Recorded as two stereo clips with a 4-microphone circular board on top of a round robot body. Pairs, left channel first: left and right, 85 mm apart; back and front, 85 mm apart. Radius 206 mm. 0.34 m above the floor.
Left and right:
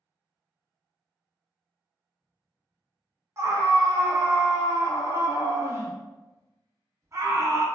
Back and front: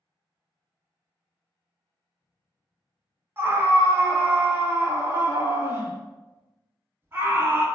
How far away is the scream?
About 1.0 m.